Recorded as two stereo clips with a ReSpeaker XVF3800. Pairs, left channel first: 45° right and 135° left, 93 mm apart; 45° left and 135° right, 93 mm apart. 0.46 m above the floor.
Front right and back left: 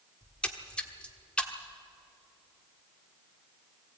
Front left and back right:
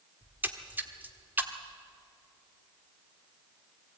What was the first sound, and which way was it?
A splash, 105° right.